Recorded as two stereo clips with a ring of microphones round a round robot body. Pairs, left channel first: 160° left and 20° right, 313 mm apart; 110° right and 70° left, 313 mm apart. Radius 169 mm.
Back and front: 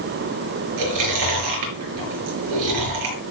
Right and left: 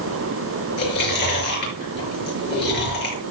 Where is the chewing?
55° right, 6 m.